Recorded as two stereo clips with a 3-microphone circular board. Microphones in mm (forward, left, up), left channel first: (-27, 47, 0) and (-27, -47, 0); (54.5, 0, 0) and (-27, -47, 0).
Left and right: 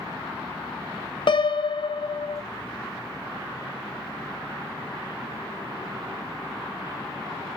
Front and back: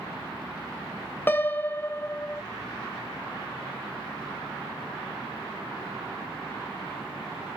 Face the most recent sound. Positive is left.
turn(degrees=95)